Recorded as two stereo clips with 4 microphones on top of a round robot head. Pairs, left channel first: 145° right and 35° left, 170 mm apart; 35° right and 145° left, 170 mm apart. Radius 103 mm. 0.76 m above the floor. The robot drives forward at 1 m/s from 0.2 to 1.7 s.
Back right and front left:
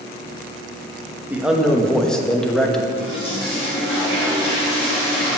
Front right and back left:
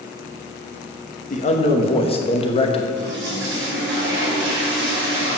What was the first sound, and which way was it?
A man speaking, 40° right.